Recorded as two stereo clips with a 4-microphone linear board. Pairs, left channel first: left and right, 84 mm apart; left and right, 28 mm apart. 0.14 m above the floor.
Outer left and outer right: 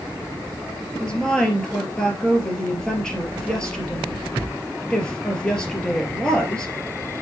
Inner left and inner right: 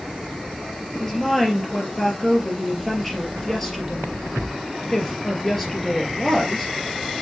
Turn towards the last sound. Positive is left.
turn(degrees=10)  # may be behind; listen again after turning